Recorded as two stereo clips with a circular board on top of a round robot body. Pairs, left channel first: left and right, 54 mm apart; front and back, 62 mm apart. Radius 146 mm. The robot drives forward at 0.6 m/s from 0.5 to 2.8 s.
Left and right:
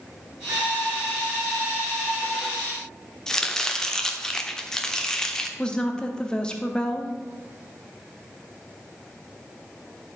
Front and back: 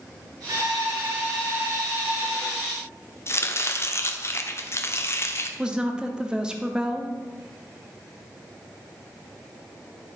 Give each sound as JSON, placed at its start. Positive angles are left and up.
{"t": 0.5, "sound": "a violin", "azimuth_deg": -145, "distance_m": 2.0}
{"t": 3.3, "sound": "chopping", "azimuth_deg": 15, "distance_m": 1.1}
{"t": 5.6, "sound": "a woman speaking", "azimuth_deg": 130, "distance_m": 1.1}